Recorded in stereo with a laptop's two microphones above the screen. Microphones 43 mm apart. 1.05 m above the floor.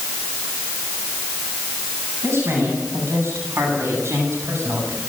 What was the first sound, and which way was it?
A woman speaking, 75° right (ahead or behind).